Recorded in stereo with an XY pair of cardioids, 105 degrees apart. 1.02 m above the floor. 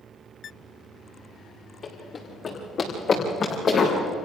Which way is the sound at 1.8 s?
45° left.